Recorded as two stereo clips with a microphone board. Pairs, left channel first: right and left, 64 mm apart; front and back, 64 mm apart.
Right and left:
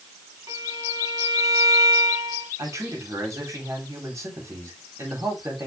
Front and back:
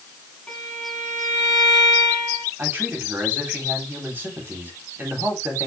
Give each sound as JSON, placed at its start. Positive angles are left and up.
{"t": 0.5, "sound": "a violin", "azimuth_deg": 75, "distance_m": 4.5}
{"t": 2.6, "sound": "a man speaking", "azimuth_deg": 125, "distance_m": 4.0}